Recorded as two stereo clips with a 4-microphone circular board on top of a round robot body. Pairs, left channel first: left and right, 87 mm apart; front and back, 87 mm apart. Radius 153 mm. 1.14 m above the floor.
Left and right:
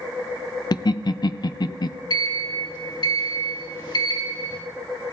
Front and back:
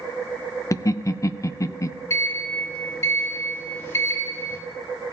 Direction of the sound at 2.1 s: 55° left.